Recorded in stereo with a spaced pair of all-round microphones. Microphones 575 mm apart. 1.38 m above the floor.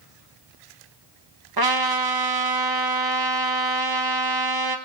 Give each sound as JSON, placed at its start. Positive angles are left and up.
{"t": 1.6, "sound": "a trumpet", "side_deg": -40, "distance_m": 0.9}